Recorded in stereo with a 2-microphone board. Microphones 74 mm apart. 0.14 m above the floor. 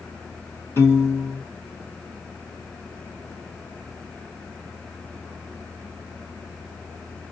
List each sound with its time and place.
0.8 s a piano: 35° left (ahead or behind), 3.5 m